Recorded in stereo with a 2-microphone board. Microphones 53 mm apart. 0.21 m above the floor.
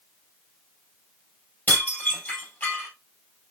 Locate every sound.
1.7 s dishes clattering: 35° left (ahead or behind), 3 m